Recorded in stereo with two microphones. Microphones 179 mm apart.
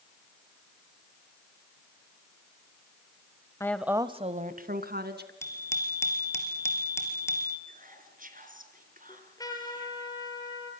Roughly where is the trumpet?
Left.